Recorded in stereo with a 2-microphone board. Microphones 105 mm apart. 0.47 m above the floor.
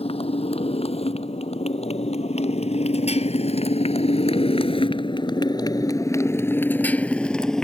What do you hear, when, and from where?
0.0 s a motorcycle: 70° left (ahead or behind); by 7.6 s 5° left (ahead or behind)